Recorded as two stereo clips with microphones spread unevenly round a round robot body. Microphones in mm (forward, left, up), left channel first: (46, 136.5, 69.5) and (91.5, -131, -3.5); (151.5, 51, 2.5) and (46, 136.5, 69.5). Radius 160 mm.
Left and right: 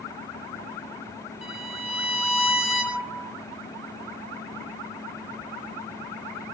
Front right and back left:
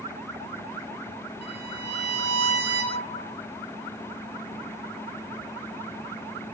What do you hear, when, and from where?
1.4 s a violin: 170° right, 1.9 m